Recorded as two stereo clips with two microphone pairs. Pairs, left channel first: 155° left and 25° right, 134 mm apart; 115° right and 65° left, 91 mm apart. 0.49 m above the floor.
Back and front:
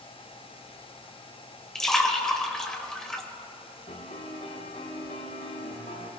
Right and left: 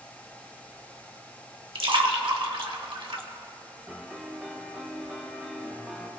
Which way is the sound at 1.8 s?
70° left.